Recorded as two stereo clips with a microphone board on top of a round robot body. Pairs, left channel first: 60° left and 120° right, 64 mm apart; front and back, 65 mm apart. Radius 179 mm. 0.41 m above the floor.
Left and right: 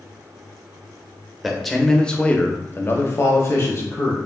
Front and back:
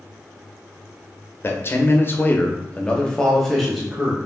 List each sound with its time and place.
1.4 s a man speaking: 35° right, 1.2 m; by 4.2 s 100° left, 1.6 m